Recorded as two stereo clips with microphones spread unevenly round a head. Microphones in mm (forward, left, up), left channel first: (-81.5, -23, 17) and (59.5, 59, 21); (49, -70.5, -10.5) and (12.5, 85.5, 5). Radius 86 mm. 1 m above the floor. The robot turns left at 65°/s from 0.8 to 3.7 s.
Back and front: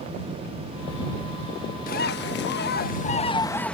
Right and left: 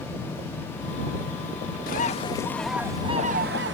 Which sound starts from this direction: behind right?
A bird, at 1.9 s.